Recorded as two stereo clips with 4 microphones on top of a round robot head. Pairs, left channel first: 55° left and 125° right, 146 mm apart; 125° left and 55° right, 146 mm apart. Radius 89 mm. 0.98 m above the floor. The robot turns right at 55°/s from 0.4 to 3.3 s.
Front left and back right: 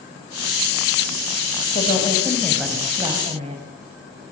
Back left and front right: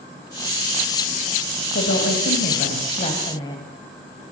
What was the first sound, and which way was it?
A woman speaking, 100° left.